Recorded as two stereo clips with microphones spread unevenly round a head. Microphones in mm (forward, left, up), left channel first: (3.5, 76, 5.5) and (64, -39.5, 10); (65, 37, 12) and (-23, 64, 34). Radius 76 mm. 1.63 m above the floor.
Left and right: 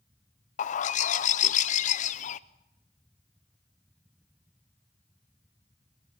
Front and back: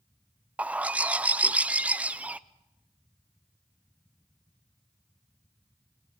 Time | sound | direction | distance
0.6 | a bird | 100° left | 0.6 m